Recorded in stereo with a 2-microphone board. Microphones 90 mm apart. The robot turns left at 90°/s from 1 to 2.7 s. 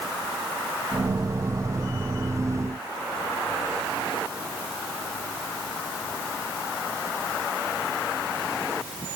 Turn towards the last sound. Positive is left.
No sound to turn to.